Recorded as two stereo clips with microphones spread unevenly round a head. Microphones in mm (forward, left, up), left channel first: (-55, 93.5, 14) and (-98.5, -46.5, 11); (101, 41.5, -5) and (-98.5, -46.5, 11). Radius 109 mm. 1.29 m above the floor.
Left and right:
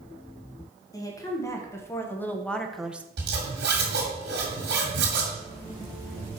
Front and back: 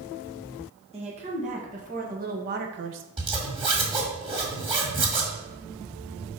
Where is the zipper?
90° right, 1.9 m.